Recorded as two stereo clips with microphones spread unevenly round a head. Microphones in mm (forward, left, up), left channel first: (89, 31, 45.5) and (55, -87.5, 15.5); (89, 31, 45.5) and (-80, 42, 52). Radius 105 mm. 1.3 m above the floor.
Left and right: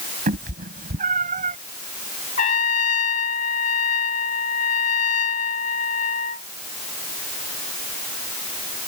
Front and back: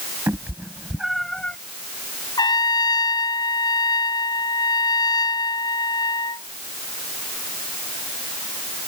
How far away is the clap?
No clap in this recording.